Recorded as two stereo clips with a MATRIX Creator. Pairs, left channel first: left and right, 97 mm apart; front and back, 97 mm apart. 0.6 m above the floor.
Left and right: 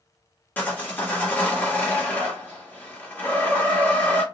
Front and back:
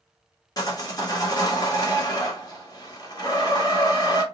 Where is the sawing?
25° left, 1.3 m.